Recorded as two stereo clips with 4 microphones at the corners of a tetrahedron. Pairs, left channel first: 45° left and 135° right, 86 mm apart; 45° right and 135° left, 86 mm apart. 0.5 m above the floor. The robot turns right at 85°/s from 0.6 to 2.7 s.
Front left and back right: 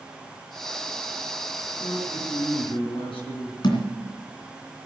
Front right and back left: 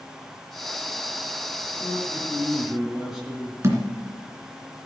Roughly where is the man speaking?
Ahead right.